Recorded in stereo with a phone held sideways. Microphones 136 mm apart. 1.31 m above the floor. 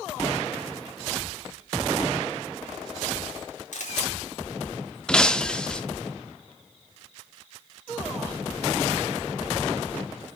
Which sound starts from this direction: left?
A camera shutter, at 3.7 s.